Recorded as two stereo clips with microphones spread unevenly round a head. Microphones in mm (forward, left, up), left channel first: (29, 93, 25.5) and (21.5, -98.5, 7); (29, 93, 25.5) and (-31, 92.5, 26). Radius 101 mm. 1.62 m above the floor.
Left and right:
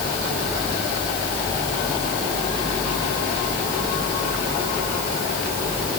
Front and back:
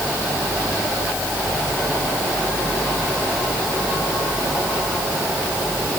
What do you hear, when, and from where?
Only background noise.